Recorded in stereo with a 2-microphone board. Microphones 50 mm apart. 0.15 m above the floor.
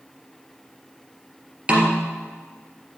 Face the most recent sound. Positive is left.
turn(degrees=-25)  # may be behind; listen again after turning